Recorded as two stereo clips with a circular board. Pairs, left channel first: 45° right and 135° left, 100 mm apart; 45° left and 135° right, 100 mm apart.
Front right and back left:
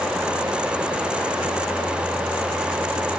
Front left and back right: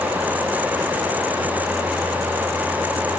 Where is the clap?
I don't hear a clap.